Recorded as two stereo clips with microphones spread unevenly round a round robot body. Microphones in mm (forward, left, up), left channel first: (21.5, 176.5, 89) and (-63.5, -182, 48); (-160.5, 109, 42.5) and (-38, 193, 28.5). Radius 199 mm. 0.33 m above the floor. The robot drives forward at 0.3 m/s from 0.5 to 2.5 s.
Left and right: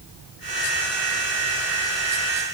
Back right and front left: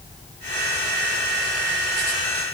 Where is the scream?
I don't hear a scream.